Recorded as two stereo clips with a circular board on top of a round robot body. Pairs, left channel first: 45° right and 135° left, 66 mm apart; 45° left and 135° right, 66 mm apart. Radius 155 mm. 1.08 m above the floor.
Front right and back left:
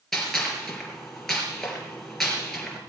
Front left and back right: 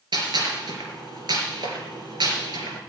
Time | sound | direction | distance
0.1 | a gunshot | 130° right | 3.5 m